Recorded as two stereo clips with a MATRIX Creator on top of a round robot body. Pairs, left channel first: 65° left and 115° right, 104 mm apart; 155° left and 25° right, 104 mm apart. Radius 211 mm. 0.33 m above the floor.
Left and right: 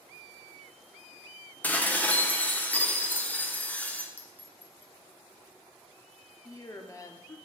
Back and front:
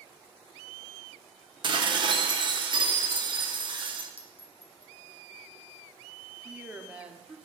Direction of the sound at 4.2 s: 140° left.